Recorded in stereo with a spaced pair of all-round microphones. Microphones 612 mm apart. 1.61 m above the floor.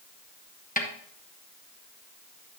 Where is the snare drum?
15° left (ahead or behind), 1.1 m.